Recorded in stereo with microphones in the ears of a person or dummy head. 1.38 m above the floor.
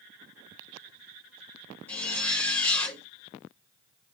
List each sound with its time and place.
1.9 s a zipper: 10° left (ahead or behind), 3.5 m